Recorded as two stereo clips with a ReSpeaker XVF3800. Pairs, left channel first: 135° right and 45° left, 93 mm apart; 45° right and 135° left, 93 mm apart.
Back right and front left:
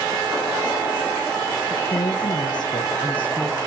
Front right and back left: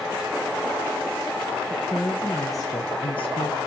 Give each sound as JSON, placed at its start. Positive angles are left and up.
{"t": 1.7, "sound": "a woman speaking", "azimuth_deg": -130, "distance_m": 1.6}